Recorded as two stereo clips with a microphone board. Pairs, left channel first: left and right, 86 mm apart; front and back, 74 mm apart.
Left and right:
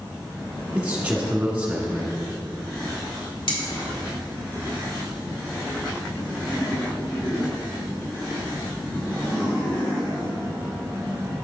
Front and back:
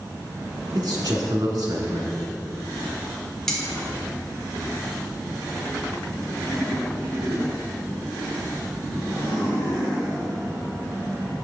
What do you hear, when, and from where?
0.8 s a man speaking: 165° right, 1.6 m
3.5 s cutlery clinking: 85° left, 1.5 m